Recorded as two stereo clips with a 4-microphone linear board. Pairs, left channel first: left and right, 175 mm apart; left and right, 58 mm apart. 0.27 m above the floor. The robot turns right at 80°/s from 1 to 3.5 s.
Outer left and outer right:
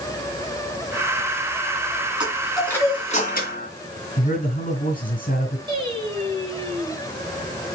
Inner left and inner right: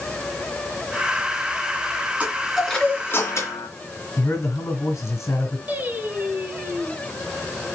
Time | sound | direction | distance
2.2 | a chime | 30° right | 2.5 m
4.2 | a man speaking | 50° left (ahead or behind) | 3.5 m
5.7 | singing | 30° right (ahead or behind) | 3 m